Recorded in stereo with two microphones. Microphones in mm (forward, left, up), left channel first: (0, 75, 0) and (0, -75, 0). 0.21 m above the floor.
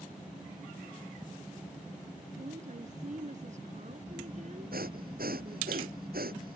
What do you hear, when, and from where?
2.4 s a woman speaking: 55° right (ahead or behind)
4.7 s breathing: 85° right